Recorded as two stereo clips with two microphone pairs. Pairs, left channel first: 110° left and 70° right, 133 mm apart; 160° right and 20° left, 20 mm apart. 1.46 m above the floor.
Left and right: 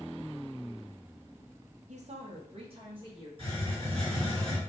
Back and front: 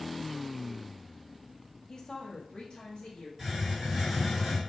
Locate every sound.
1.9 s a woman speaking: 90° right, 0.6 m; by 3.3 s 120° right, 1.9 m
3.4 s a hiss: 45° right, 1.5 m